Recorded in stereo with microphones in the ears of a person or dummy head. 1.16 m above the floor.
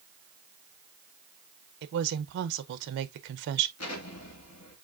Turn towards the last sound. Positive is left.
turn(degrees=85)